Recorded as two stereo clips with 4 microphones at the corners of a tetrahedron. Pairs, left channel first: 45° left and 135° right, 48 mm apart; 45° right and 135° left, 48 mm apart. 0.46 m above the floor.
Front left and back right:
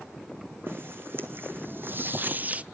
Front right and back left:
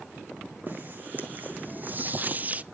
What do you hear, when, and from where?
0.7 s footsteps: 175° right, 2.5 m; by 2.6 s straight behind, 0.5 m